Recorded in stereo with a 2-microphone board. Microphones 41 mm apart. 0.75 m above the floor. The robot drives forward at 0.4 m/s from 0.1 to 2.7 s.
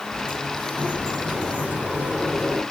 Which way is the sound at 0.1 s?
60° right (ahead or behind).